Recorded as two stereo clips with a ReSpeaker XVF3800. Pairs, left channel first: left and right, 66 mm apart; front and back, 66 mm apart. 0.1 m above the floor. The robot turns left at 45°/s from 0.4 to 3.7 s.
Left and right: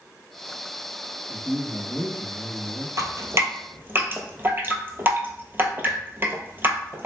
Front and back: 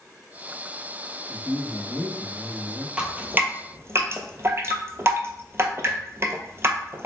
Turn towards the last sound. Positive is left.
turn(degrees=-140)